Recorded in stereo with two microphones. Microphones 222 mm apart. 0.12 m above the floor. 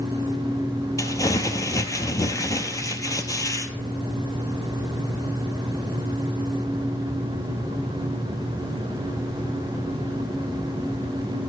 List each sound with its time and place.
1.0 s crumpling: 15° left (ahead or behind), 0.6 m